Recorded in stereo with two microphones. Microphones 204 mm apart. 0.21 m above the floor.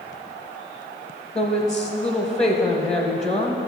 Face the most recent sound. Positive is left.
turn(degrees=5)  # may be behind; listen again after turning